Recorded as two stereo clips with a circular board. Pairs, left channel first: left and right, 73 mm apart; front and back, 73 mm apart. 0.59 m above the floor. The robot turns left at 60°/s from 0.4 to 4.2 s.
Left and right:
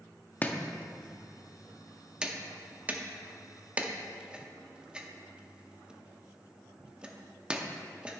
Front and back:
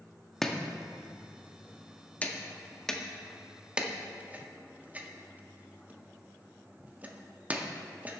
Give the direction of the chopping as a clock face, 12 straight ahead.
9 o'clock.